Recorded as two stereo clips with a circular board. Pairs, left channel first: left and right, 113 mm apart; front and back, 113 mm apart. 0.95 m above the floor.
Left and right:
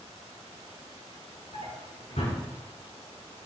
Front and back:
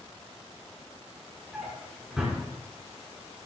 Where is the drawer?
95° left, 6 m.